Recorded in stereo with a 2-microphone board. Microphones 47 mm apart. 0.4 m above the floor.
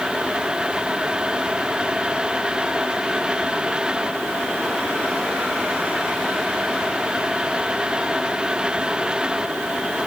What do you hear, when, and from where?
Only background noise.